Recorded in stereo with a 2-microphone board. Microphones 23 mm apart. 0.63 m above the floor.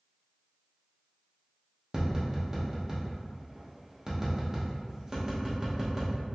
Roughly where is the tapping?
Right.